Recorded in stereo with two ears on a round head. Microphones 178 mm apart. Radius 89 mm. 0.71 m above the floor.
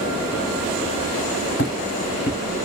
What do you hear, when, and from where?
1.6 s footsteps: 50° left (ahead or behind), 1.9 m